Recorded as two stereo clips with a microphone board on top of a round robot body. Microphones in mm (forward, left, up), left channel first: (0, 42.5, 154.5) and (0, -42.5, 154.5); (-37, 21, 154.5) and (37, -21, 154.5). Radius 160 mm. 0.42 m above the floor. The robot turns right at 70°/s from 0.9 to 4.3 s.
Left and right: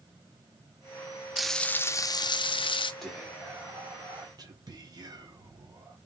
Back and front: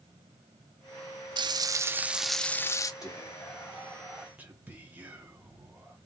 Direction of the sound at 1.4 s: 5° right.